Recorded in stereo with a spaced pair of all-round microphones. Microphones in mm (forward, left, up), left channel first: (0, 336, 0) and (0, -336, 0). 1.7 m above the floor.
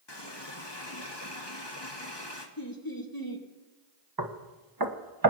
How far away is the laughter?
About 1.9 m.